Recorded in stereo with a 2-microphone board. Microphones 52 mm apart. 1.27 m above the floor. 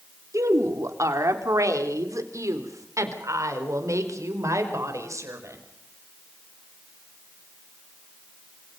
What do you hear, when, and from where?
0.3 s a woman speaking: 70° right (ahead or behind), 3 m